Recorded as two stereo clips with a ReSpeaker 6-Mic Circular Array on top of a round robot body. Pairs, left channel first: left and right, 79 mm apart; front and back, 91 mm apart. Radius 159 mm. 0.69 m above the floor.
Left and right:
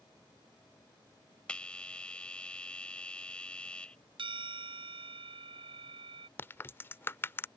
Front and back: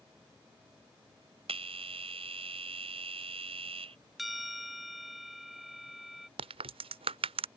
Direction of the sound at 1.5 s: 170° left.